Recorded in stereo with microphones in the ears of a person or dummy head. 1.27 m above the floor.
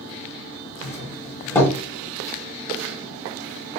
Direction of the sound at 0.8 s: 10° left (ahead or behind).